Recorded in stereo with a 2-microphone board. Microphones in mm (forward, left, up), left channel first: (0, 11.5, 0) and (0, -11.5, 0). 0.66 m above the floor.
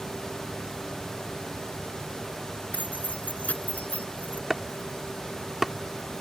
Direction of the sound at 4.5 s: 10° right (ahead or behind).